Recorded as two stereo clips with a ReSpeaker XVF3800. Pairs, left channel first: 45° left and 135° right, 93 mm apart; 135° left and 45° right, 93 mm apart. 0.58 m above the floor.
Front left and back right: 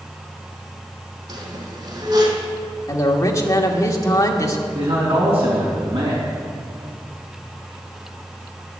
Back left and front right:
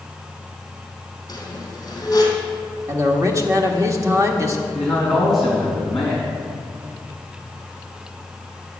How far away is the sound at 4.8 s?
About 4 m.